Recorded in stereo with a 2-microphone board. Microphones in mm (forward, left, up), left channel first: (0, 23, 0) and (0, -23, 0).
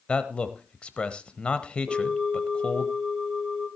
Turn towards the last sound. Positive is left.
turn(degrees=-10)  # may be behind; listen again after turning